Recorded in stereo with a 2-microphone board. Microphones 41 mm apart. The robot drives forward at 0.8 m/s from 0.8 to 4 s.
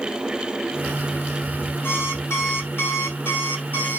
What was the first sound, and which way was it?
An alarm clock, 85° left.